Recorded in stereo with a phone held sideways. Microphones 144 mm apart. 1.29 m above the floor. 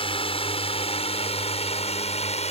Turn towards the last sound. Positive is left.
turn(degrees=50)  # may be behind; listen again after turning